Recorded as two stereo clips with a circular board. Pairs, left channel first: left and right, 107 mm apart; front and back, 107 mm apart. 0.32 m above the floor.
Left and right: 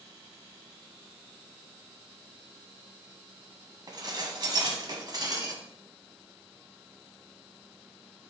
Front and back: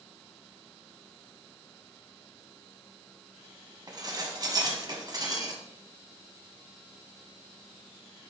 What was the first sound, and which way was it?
Dishes clattering, 135° right.